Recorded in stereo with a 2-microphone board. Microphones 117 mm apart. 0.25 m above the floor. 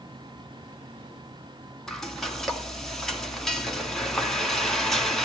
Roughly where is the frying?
Centre.